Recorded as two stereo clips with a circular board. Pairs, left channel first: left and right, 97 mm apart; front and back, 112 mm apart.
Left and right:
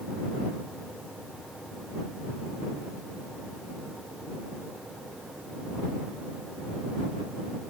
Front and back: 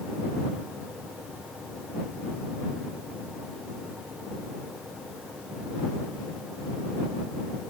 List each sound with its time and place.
Only background noise.